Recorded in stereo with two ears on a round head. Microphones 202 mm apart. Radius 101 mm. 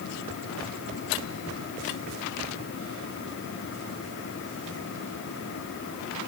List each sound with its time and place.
Only background noise.